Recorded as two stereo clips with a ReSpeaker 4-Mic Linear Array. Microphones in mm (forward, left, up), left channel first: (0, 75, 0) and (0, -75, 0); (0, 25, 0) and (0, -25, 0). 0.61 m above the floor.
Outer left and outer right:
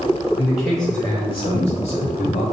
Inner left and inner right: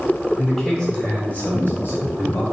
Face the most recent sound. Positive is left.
turn(degrees=55)  # may be behind; listen again after turning